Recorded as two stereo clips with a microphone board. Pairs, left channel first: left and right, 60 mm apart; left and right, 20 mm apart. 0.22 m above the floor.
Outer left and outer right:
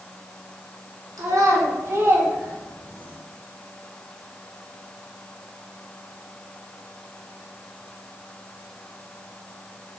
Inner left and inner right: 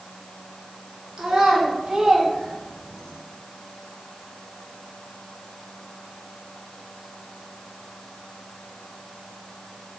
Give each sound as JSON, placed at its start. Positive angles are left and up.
{"t": 1.2, "sound": "a child speaking", "side_deg": -55, "distance_m": 1.5}